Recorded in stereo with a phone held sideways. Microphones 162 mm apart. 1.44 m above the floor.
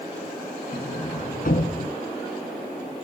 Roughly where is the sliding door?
Left.